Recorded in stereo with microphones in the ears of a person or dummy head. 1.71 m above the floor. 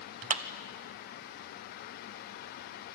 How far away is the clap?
About 1.0 m.